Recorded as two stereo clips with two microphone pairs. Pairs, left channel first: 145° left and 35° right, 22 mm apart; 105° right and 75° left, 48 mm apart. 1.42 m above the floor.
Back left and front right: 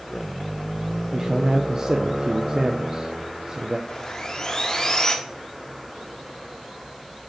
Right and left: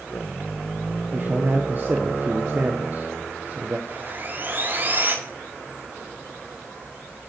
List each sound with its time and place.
1.1 s a man speaking: 25° left, 0.6 m
3.9 s sawing: 100° left, 1.2 m